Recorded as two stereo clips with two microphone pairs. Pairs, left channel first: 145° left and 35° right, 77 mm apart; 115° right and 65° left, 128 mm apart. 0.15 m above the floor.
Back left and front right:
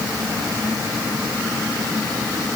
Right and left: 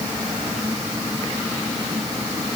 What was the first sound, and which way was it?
Only background noise.